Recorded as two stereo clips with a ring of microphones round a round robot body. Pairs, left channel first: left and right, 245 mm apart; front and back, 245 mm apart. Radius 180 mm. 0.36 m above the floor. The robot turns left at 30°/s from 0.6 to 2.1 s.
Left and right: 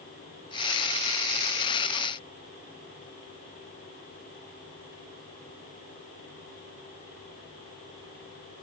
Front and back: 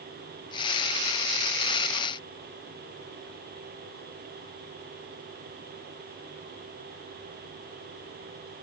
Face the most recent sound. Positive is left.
No sound to turn to.